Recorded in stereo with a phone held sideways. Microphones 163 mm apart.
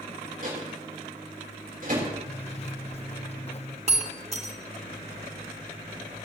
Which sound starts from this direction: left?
A zipper, at 2.3 s.